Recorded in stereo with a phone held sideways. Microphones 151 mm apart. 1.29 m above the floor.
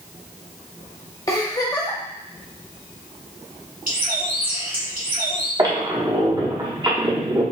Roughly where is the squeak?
Right.